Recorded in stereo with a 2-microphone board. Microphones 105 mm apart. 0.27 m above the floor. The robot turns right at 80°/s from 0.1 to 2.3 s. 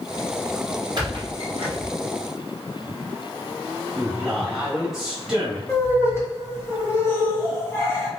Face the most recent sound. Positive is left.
turn(degrees=25)  # may be behind; listen again after turning